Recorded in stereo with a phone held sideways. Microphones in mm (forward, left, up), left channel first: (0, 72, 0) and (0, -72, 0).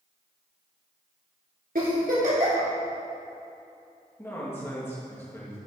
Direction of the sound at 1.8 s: 80° right.